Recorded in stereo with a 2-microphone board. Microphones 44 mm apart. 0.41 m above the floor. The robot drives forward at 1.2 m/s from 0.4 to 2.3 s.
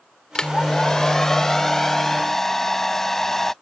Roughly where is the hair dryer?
Centre.